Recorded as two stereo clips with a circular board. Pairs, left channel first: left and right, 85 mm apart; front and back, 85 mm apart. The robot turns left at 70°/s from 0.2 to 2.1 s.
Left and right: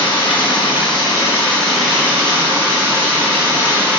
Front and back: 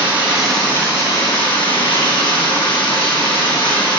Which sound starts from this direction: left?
Running water, at 0.0 s.